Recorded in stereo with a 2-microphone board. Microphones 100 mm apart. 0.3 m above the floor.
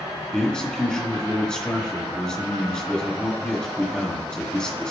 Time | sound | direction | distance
0.3 | a man speaking | 10° left (ahead or behind) | 1.4 m